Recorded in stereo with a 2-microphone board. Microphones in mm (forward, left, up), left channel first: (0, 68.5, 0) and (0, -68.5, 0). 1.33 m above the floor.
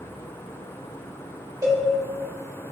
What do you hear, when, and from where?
1.6 s a cowbell: 25° right (ahead or behind), 1.6 m